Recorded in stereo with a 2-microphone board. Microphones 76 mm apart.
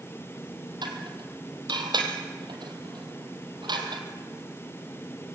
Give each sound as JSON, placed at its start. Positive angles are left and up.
{"t": 0.8, "sound": "dishes clattering", "side_deg": -75, "distance_m": 3.0}